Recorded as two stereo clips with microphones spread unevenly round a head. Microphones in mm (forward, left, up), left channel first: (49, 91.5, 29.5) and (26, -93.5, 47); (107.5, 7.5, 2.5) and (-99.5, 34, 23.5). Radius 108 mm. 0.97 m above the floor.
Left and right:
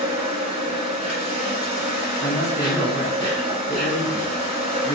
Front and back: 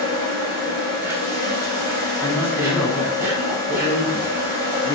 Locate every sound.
0.0 s an insect: 105° right, 1.4 m
2.2 s a man speaking: 45° left, 0.7 m